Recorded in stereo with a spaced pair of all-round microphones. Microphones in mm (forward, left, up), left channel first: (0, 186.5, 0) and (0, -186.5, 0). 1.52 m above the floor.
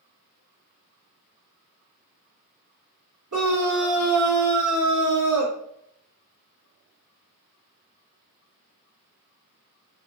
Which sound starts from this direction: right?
A scream, at 3.3 s.